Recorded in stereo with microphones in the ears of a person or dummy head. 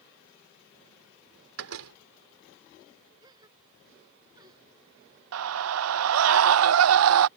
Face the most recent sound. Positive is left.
turn(degrees=-75)  # may be behind; listen again after turning